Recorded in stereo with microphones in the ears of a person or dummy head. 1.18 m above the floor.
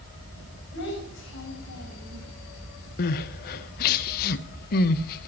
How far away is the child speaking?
About 4.5 m.